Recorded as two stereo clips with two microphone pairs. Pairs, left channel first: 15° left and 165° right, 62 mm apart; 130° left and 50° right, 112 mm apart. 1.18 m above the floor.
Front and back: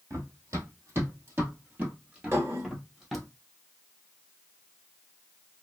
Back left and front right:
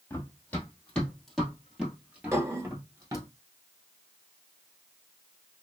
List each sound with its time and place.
0.1 s running footsteps: 165° right, 1.9 m; by 3.3 s 65° right, 1.4 m
2.3 s dishes clattering: 115° right, 1.4 m